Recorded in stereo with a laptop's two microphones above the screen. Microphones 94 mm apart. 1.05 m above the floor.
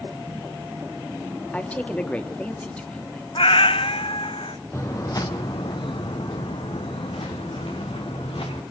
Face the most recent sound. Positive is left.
turn(degrees=80)